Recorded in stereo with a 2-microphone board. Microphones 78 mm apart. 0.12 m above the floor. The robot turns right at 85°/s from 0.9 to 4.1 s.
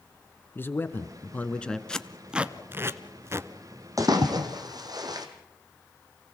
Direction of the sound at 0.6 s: 25° left (ahead or behind).